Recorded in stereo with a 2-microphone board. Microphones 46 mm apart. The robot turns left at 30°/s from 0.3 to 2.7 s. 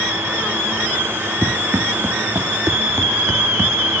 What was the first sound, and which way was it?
Running footsteps, 50° right (ahead or behind).